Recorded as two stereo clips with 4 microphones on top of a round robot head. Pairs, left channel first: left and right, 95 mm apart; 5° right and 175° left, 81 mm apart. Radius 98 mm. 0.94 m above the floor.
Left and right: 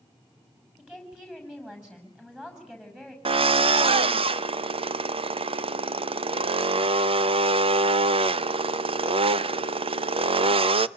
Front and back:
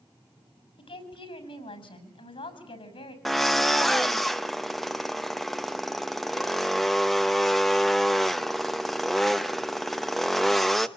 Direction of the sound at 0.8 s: 5° right.